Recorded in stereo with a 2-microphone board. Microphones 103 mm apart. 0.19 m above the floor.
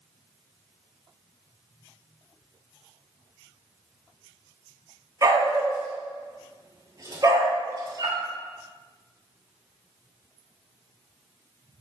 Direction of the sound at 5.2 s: 35° right (ahead or behind).